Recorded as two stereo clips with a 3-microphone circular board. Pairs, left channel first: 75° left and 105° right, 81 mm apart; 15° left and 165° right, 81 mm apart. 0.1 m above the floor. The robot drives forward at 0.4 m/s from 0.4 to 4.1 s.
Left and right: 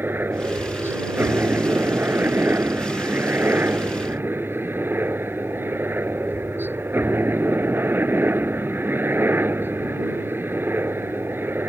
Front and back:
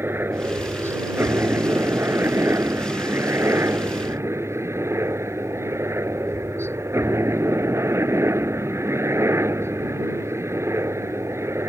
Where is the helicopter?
140° right; by 11.7 s 145° right.